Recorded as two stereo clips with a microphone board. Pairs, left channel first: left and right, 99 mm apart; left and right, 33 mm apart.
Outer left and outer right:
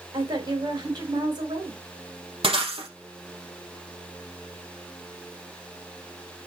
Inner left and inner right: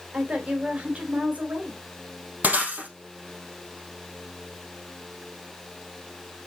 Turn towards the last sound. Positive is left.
turn(degrees=-70)  # may be behind; listen again after turning